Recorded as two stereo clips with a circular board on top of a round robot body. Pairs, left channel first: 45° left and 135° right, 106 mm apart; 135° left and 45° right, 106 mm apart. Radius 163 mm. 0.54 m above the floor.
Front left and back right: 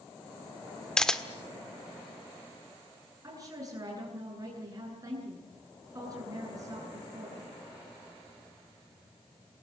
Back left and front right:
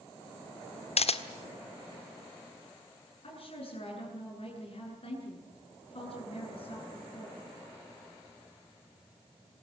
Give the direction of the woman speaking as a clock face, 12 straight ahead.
7 o'clock.